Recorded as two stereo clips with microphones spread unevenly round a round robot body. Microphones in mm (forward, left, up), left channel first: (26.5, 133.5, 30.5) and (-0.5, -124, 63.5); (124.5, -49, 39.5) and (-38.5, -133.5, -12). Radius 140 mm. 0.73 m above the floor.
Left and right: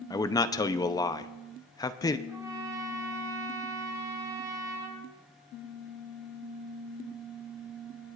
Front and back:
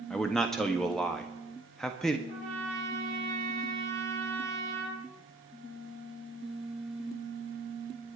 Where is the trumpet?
175° right, 4 m.